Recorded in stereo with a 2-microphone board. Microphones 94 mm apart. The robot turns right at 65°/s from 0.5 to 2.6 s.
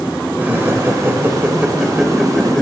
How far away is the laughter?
About 0.9 m.